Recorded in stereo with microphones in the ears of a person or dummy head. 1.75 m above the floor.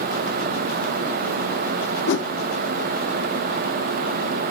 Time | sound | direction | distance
2.1 | a whoosh | 60° left (ahead or behind) | 0.5 m